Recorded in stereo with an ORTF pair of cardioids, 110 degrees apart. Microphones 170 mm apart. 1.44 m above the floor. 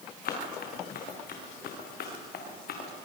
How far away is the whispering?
No whispering in this recording.